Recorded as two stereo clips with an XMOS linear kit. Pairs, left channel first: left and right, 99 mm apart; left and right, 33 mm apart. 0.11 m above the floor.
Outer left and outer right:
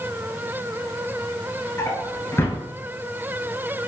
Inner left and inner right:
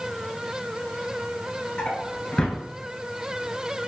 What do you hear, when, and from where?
1.8 s a drawer: 25° left (ahead or behind), 0.6 m